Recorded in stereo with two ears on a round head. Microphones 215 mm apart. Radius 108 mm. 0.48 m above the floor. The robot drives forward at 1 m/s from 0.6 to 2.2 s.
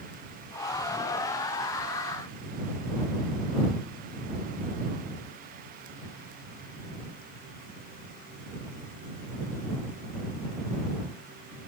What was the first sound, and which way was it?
Only background noise.